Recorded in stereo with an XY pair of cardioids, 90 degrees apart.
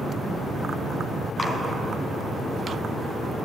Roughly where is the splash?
Ahead left.